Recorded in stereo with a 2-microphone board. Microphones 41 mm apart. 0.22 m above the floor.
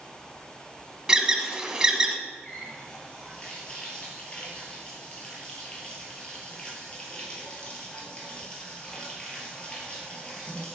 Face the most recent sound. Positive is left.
turn(degrees=20)  # may be behind; listen again after turning